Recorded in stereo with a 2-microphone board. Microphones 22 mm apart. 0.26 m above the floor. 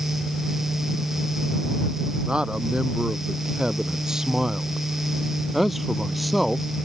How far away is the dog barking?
No dog barking in this recording.